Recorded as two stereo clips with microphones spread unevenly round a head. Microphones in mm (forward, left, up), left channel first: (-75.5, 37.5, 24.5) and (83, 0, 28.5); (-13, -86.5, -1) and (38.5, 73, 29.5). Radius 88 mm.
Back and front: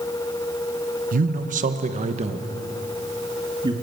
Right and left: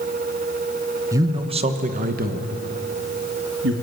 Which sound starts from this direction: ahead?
A man speaking, at 1.1 s.